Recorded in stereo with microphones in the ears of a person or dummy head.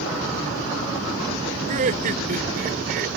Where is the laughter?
40° right (ahead or behind); by 3.1 s 55° right (ahead or behind).